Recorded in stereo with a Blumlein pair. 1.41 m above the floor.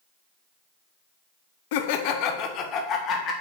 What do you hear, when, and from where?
1.7 s laughter: 50° left, 0.6 m; by 3.3 s 30° left, 1.4 m